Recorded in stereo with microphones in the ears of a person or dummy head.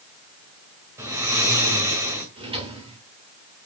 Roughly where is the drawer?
Right.